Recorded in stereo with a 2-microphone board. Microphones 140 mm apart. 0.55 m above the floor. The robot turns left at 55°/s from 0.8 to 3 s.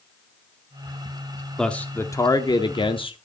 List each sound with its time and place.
1.6 s a man speaking: 175° left, 0.8 m; by 3.2 s 95° left, 0.8 m